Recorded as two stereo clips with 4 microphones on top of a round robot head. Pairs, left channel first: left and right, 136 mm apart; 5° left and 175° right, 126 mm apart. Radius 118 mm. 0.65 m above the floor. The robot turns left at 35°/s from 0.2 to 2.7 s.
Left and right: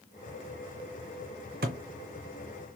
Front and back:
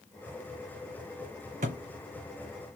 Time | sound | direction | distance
1.6 | a thud | 125° right | 0.5 m